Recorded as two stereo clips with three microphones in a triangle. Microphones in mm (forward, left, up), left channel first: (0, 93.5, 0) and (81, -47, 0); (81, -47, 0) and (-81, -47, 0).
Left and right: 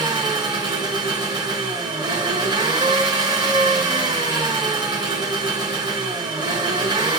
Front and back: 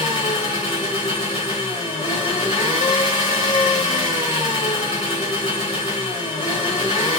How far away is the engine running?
About 1.6 m.